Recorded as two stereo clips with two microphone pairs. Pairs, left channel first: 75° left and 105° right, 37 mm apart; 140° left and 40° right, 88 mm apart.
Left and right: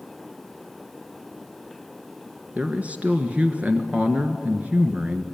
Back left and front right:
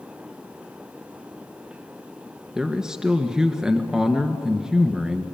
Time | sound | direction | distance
2.5 | a man speaking | 115° right | 1.6 m